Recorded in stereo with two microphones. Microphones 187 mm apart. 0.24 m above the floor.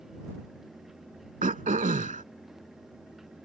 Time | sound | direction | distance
1.4 | throat clearing | 45° right (ahead or behind) | ?